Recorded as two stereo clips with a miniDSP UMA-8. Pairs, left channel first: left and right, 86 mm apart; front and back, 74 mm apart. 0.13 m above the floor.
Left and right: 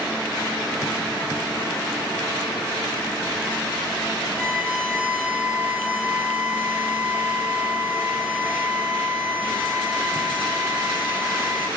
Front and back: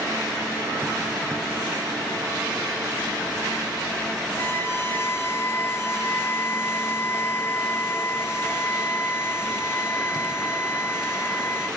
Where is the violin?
25° right, 0.8 m.